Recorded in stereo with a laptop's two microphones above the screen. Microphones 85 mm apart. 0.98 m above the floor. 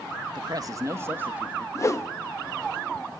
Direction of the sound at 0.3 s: 55° right (ahead or behind).